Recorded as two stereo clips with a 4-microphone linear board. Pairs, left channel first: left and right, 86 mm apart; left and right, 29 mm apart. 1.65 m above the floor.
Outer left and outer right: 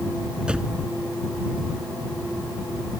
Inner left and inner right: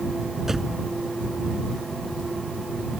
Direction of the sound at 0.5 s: 10° right (ahead or behind).